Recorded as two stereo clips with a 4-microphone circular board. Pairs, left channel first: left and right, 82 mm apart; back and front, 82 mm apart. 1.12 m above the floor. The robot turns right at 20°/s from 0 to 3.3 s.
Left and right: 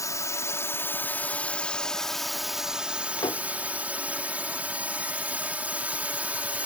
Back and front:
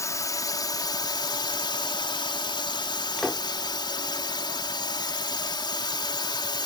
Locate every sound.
0.0 s a drone: 130° left; by 6.7 s 160° right
3.2 s a door slam: 95° left; by 3.5 s 100° left